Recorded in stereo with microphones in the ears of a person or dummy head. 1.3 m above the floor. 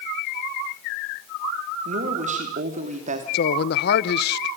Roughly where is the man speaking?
Left.